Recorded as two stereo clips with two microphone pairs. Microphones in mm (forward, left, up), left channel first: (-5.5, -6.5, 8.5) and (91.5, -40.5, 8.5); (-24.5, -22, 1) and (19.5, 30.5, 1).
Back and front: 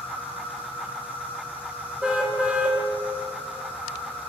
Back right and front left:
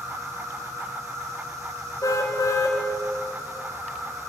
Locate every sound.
0.0 s an insect: 90° left, 8 m
2.0 s a car horn: 100° right, 3.5 m